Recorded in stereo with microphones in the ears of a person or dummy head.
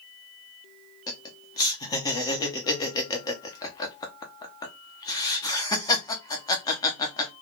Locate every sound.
1.1 s laughter: 15° left (ahead or behind), 0.6 m